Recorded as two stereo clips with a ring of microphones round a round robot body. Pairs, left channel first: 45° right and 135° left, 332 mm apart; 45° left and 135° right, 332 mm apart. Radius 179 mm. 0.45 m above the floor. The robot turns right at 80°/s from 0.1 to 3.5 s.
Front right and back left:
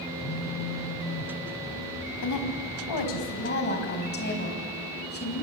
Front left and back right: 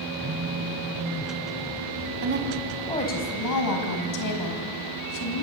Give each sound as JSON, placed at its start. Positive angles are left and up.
{"t": 0.2, "sound": "a phone buzzing", "azimuth_deg": -90, "distance_m": 4.0}
{"t": 2.2, "sound": "a woman speaking", "azimuth_deg": -90, "distance_m": 4.0}